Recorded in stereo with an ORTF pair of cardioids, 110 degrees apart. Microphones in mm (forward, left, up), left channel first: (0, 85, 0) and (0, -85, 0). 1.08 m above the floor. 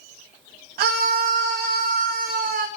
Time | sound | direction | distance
0.8 | a scream | 70° right | 1.0 m